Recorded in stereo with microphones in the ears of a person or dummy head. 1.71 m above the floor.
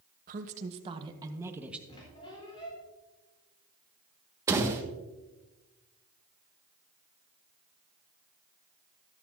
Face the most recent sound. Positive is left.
turn(degrees=-15)  # may be behind; listen again after turning